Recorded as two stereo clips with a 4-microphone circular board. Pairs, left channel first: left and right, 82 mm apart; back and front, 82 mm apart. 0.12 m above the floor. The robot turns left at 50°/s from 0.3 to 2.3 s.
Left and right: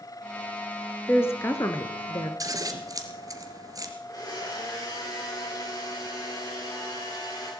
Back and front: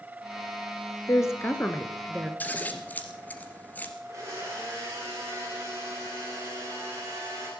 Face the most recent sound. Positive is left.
turn(degrees=55)